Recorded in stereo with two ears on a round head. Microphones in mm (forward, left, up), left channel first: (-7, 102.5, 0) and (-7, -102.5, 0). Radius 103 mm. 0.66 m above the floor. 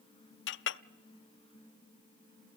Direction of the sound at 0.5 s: 55° left (ahead or behind).